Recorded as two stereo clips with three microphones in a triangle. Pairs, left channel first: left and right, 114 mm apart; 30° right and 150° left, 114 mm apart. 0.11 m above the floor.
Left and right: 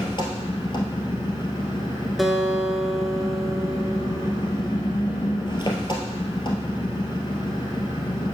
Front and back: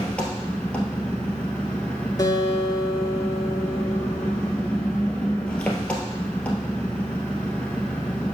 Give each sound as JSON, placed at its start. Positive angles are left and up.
{"t": 0.0, "sound": "an engine running", "azimuth_deg": 50, "distance_m": 1.7}
{"t": 2.2, "sound": "a guitar", "azimuth_deg": 0, "distance_m": 1.0}